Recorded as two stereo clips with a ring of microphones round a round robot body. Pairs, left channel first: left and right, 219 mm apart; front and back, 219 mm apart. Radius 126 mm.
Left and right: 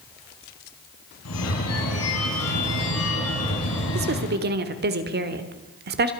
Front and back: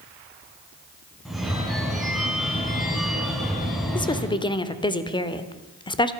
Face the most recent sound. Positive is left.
turn(degrees=-65)